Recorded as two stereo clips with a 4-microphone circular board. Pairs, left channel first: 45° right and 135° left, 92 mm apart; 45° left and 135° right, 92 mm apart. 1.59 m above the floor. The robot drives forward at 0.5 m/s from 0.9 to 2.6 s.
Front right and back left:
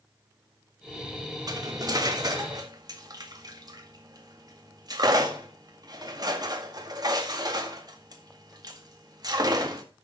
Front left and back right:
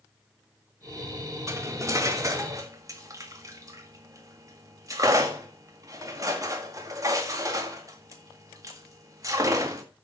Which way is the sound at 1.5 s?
170° left.